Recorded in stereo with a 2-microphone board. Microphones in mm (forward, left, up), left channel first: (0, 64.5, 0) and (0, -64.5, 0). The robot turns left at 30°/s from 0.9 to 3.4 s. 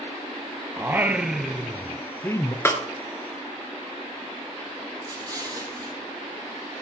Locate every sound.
0.8 s singing: 160° right, 0.6 m; by 2.5 s 150° left, 0.6 m
2.6 s a snare drum: 20° left (ahead or behind), 1.5 m
5.0 s an explosion: 30° right (ahead or behind), 2.5 m